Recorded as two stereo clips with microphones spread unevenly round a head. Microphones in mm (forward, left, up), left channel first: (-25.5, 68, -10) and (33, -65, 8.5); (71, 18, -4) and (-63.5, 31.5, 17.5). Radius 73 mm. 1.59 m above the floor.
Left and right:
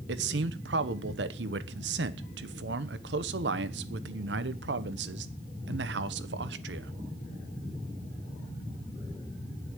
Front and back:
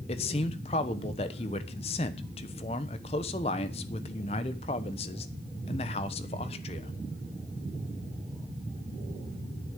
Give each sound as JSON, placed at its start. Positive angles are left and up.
{"t": 0.1, "sound": "a man speaking", "azimuth_deg": -60, "distance_m": 1.1}